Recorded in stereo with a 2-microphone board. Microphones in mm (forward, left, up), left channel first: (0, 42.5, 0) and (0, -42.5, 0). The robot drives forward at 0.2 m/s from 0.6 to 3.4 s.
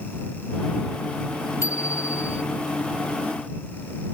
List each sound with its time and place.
1.6 s a bicycle bell: 40° left (ahead or behind)